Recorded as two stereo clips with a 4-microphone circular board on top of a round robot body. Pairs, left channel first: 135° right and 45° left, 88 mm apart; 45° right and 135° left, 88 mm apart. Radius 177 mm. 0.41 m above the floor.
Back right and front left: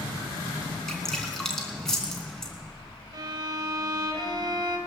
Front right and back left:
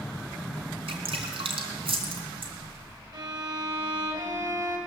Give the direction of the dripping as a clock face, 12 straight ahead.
7 o'clock.